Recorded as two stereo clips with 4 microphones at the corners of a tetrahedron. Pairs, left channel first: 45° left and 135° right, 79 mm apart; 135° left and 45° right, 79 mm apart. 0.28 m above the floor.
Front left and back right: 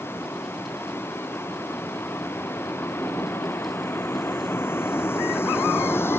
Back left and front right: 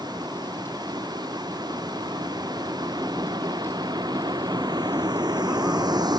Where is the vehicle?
15° right.